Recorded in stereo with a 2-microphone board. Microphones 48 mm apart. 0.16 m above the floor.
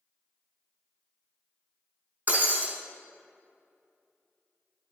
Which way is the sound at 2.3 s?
40° right (ahead or behind).